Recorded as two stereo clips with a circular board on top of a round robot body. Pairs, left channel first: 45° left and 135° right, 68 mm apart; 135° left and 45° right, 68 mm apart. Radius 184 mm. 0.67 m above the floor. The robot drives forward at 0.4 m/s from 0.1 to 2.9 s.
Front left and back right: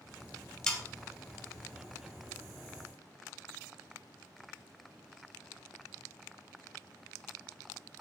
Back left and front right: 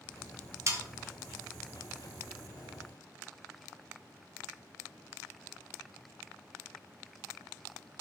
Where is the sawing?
30° right, 1.1 m; by 0.8 s 35° right, 1.0 m.